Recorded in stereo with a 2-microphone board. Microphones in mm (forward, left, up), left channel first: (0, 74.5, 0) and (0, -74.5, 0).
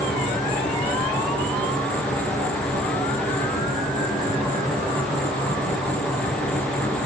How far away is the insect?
About 5.5 m.